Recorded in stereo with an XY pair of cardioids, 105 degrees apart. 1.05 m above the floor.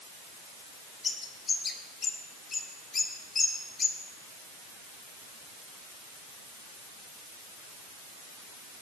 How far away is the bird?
About 3 m.